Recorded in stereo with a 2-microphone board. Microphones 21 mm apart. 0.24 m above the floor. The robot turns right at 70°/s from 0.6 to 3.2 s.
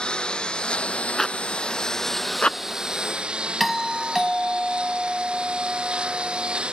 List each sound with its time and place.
0.0 s a lawn mower: 55° left (ahead or behind); by 6.7 s 65° right (ahead or behind)
1.2 s a zipper: 20° left (ahead or behind); by 2.8 s 45° left (ahead or behind)
3.6 s a doorbell: 5° left (ahead or behind)